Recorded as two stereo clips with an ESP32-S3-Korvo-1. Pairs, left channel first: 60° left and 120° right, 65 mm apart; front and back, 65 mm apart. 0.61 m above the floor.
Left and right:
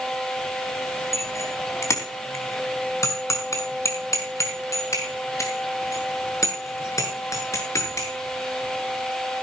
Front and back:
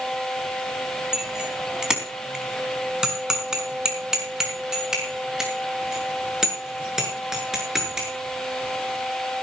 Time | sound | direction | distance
1.1 | a bicycle bell | 100° left | 3.5 m